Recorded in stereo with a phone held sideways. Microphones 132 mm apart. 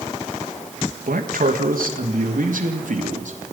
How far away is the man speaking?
About 2.5 m.